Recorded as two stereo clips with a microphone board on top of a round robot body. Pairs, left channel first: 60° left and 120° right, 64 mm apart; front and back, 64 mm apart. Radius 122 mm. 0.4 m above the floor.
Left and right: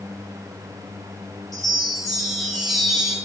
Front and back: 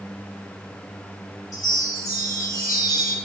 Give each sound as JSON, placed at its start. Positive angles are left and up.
{"t": 1.5, "sound": "a chime", "azimuth_deg": -25, "distance_m": 4.5}